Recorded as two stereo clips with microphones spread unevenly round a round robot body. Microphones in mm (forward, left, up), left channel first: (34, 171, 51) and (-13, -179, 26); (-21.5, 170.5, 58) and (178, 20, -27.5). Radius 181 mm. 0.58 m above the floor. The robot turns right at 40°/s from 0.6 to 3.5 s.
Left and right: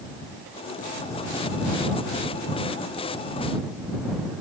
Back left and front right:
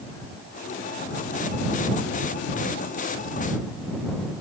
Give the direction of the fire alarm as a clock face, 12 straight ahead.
I don't hear a fire alarm.